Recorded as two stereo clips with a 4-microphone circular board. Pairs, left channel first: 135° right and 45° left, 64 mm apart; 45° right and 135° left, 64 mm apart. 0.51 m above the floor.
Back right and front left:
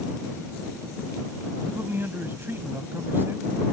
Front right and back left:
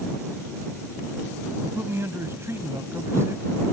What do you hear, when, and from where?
1.6 s a man speaking: 95° left